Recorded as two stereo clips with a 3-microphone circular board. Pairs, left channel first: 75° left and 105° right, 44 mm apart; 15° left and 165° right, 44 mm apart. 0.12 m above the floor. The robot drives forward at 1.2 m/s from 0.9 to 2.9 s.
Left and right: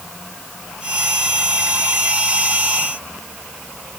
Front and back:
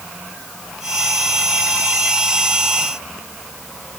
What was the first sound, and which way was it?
Only background noise.